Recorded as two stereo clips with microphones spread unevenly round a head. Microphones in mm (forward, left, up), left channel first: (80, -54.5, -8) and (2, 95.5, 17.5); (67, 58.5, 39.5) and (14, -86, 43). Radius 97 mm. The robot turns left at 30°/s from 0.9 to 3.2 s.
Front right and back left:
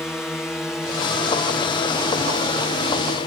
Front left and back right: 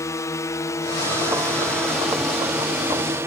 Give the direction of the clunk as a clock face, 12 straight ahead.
No clunk in this recording.